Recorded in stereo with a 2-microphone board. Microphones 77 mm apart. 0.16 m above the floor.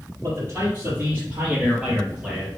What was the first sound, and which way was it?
A man speaking, 40° right (ahead or behind).